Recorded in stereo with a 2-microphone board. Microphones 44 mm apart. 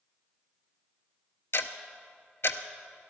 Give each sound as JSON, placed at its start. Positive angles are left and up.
{"t": 1.5, "sound": "ticking", "side_deg": 65, "distance_m": 0.5}